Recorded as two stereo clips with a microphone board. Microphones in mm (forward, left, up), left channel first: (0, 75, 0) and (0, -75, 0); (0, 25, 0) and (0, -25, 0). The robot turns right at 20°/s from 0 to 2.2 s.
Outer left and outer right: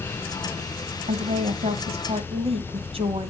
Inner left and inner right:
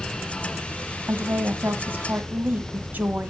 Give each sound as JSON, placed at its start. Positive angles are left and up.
{"t": 1.1, "sound": "a woman speaking", "side_deg": -55, "distance_m": 1.7}